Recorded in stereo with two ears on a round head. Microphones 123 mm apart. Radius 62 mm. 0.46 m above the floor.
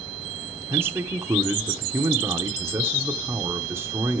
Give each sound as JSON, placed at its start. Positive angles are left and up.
{"t": 0.7, "sound": "a man speaking", "side_deg": -15, "distance_m": 0.9}